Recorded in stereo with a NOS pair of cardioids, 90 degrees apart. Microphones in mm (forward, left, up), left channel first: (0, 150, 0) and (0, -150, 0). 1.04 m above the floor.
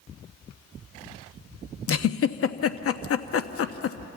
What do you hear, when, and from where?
1.9 s a giggle: 50° left, 0.9 m